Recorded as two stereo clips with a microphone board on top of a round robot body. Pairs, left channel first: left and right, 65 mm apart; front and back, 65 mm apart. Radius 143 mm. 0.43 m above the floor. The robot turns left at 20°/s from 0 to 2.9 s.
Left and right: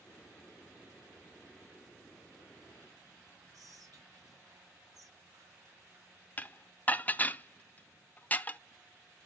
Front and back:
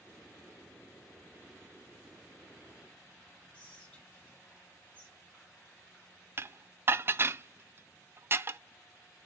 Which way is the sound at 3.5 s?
70° right.